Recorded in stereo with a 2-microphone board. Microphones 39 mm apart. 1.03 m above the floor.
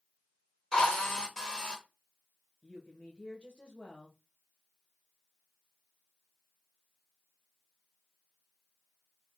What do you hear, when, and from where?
0.7 s a drill: 15° left (ahead or behind), 1.2 m
2.6 s a woman speaking: 25° left (ahead or behind), 1.1 m